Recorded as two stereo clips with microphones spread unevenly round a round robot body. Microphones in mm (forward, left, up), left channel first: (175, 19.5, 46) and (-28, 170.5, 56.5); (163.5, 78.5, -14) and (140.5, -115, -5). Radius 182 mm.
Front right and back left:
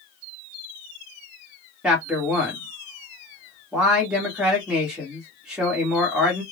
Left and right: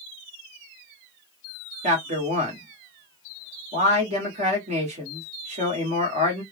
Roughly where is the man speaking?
Behind right.